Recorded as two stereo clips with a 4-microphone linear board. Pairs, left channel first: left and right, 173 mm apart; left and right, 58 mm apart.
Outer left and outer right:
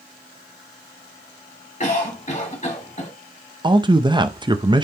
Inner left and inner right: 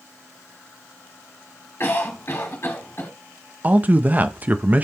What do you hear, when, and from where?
1.8 s a cough: 45° left (ahead or behind), 2 m
3.6 s a man speaking: 25° right (ahead or behind), 0.6 m